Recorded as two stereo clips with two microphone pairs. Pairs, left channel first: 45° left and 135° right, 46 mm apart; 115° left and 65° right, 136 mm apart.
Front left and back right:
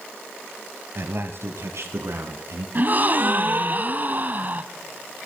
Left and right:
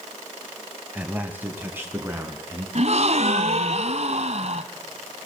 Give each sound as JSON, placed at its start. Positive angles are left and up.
{"t": 0.9, "sound": "a man speaking", "azimuth_deg": -140, "distance_m": 2.0}
{"t": 2.8, "sound": "a gasp", "azimuth_deg": -90, "distance_m": 1.4}